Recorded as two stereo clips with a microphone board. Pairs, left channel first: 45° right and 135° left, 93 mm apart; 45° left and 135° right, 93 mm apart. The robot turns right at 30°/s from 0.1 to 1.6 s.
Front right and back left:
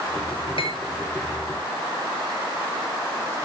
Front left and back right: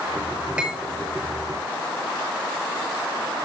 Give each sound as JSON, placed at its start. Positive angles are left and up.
{"t": 0.6, "sound": "cutlery clinking", "azimuth_deg": -55, "distance_m": 5.5}